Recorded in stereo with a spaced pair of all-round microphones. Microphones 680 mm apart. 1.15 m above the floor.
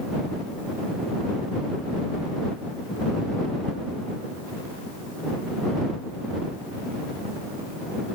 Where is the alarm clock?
I don't hear an alarm clock.